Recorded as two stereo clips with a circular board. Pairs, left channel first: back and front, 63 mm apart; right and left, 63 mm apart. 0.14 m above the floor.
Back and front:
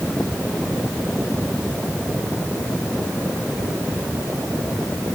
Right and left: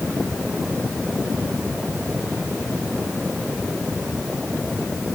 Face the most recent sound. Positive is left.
No sound to turn to.